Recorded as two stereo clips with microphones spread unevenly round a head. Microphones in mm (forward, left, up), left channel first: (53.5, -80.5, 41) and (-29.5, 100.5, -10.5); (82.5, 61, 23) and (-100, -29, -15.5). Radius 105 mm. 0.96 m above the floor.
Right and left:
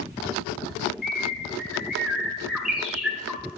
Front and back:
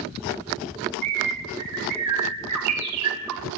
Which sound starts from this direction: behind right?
A bird, at 1.0 s.